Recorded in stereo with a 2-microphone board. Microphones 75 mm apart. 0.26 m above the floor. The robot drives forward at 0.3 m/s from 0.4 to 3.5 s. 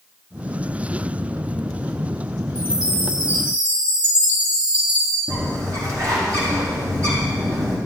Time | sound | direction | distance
2.5 | a chime | 15° right (ahead or behind) | 5 m
5.3 | a bird | 45° right (ahead or behind) | 4 m